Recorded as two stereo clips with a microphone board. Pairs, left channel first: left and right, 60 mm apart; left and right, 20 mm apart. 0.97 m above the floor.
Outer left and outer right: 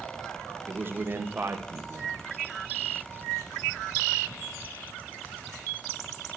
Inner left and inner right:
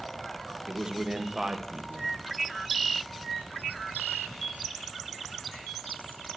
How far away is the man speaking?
About 1.2 m.